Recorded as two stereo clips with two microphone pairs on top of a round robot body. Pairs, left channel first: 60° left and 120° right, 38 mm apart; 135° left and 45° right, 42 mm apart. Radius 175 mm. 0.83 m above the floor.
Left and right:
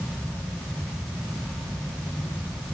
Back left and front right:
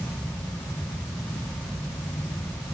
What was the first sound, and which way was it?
Only background noise.